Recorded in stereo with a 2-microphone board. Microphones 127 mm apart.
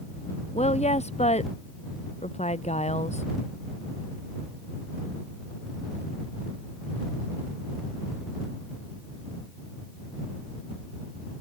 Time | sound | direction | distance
0.5 | a woman speaking | 65° left (ahead or behind) | ?